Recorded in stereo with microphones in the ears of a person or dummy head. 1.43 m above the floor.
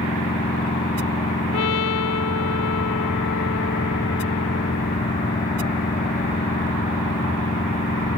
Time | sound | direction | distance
0.0 | a machine running | 35° left (ahead or behind) | ?
1.5 | a trumpet | 70° left (ahead or behind) | ?